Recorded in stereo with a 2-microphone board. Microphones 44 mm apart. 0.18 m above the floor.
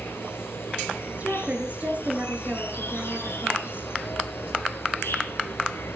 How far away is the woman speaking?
About 3.5 m.